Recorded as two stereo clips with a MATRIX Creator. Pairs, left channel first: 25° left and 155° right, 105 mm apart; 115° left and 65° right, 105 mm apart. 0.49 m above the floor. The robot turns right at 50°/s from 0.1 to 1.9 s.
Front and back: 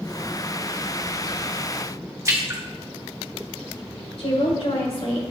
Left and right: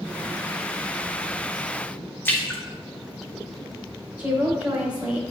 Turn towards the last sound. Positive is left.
turn(degrees=10)